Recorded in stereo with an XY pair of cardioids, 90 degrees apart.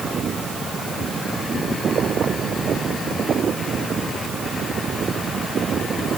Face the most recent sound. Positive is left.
No sound to turn to.